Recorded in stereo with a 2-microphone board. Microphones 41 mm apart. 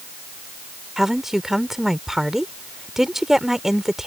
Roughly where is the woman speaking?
Centre.